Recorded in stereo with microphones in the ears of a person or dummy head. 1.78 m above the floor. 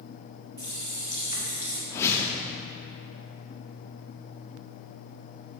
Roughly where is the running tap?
Right.